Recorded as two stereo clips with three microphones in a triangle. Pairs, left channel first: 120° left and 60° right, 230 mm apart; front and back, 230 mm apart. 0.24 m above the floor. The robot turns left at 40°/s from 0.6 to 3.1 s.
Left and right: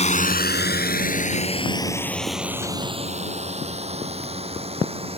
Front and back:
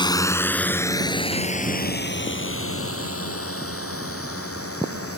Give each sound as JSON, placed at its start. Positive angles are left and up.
{"t": 0.0, "sound": "a drone", "azimuth_deg": 65}